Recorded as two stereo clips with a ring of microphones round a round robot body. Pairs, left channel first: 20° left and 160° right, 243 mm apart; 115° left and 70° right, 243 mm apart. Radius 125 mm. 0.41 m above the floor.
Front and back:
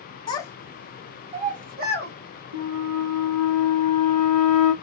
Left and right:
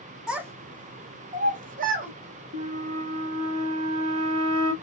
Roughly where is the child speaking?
Ahead.